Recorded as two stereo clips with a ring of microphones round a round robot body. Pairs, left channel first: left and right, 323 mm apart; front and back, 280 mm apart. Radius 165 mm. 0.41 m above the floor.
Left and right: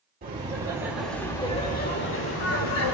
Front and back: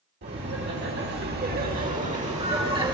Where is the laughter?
145° right, 1.6 m; by 2.9 s 110° left, 2 m.